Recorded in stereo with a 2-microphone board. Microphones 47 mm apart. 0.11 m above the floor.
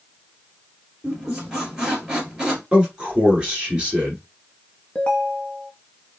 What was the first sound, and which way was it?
A squeak, 15° right (ahead or behind).